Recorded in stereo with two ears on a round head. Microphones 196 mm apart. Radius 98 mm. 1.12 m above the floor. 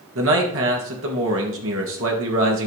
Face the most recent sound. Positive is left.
turn(degrees=-65)  # may be behind; listen again after turning